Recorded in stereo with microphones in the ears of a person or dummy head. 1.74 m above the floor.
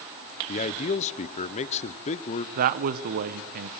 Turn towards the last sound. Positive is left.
turn(degrees=-45)  # may be behind; listen again after turning